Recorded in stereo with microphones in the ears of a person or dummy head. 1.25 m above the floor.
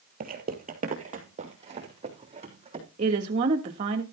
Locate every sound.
0.2 s footsteps: 50° right (ahead or behind), 1.9 m; by 2.9 s 30° right (ahead or behind), 4 m
3.0 s a woman speaking: 40° right (ahead or behind), 1.7 m